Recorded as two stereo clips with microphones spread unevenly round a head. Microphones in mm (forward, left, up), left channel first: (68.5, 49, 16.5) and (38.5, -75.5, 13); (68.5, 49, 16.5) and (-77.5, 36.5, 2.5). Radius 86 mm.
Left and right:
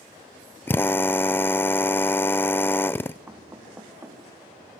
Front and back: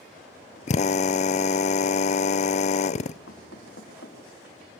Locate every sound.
0.7 s a drill: 5° left, 0.5 m
3.3 s knocking: 30° right, 3.5 m